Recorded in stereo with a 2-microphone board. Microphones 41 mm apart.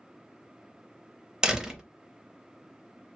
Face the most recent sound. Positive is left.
turn(degrees=-15)  # may be behind; listen again after turning